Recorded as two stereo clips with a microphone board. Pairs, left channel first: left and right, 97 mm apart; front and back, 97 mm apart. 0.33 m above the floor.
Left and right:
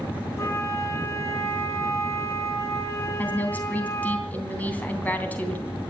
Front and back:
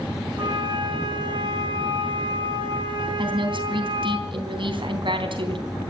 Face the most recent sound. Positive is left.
turn(degrees=160)